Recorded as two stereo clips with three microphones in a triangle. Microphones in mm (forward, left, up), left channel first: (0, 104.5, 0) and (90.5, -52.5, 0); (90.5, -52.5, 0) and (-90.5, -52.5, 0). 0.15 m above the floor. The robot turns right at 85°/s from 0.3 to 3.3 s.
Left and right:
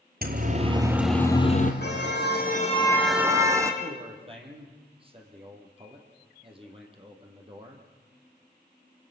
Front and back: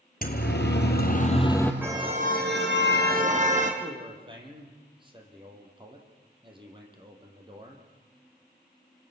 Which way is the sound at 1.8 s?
100° left.